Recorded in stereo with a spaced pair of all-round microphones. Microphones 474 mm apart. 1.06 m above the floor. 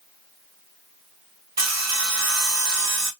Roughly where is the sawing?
Right.